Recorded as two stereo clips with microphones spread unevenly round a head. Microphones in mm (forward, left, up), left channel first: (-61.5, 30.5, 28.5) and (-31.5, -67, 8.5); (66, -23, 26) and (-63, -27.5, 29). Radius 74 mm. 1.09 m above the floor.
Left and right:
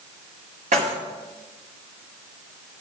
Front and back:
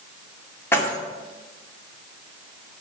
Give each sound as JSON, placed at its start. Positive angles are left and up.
{"t": 0.7, "sound": "keys jangling", "azimuth_deg": -70, "distance_m": 2.0}